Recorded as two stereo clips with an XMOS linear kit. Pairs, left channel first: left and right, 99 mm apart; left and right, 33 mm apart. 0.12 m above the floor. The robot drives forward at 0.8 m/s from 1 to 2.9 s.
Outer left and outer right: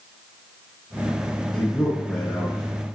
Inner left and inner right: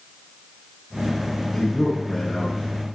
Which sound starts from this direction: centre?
A man speaking, at 1.5 s.